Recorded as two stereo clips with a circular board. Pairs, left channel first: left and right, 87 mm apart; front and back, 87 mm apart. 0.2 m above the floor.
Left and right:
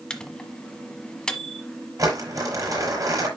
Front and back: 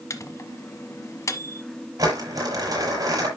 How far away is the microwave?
About 1.2 m.